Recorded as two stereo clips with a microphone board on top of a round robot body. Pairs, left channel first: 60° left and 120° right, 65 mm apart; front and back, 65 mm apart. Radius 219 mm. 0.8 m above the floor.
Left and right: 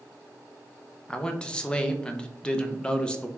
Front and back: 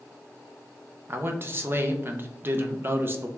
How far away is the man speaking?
About 0.6 m.